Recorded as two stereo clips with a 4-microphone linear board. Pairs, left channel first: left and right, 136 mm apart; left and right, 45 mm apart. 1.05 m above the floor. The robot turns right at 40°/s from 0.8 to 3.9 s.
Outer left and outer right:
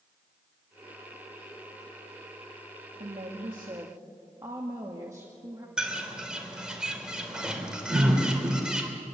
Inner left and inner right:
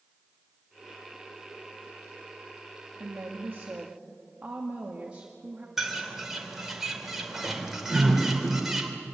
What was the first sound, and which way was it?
A woman speaking, 60° right.